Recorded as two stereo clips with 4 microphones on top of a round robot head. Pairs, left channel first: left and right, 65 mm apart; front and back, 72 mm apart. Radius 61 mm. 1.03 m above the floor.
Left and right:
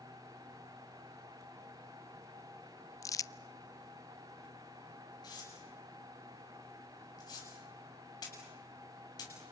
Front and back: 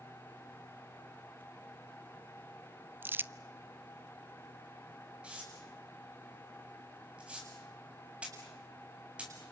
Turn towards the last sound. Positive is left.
turn(degrees=105)